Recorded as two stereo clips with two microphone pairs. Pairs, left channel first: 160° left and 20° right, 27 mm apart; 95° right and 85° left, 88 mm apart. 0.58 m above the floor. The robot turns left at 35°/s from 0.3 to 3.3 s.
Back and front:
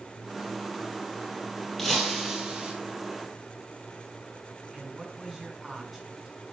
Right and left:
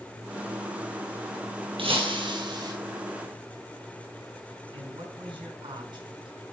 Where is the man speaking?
60° left, 5.5 m.